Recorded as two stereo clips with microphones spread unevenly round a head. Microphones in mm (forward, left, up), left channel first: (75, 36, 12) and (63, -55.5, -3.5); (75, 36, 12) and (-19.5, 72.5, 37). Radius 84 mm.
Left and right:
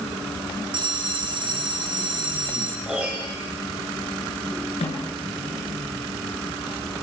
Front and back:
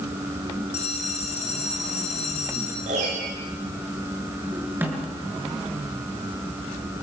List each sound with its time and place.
0.7 s a bell: 65° right, 3.5 m
2.9 s a piano: straight behind, 5.5 m
4.8 s a snare drum: 90° left, 8 m